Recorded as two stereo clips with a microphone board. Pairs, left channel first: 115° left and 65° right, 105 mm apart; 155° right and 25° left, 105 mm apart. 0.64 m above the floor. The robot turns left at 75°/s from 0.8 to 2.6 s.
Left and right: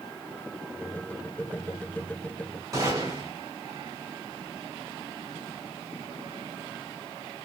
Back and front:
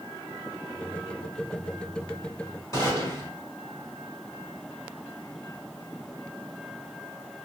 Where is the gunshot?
110° right, 2.0 m.